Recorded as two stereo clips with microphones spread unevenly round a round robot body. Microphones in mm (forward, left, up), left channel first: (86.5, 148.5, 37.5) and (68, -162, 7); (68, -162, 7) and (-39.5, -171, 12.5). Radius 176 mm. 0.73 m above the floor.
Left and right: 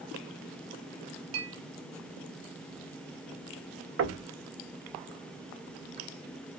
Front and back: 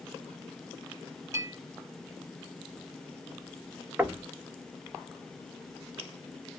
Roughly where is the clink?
Right.